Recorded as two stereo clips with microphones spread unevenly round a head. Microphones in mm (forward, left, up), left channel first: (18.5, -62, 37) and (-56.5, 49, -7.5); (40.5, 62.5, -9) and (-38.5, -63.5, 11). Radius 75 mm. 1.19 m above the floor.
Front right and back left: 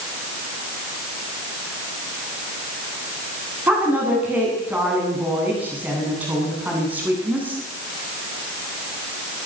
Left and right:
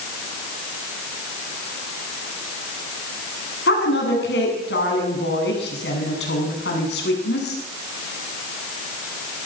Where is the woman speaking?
45° left, 9 m.